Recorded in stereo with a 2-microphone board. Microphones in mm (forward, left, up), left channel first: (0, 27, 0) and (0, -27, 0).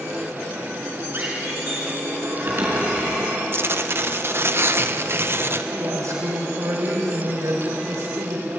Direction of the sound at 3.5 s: 45° right (ahead or behind).